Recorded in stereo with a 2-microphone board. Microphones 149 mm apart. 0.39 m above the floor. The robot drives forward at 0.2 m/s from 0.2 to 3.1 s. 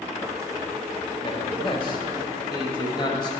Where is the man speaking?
35° left (ahead or behind), 1.5 m; by 3.3 s 30° left (ahead or behind), 1.7 m.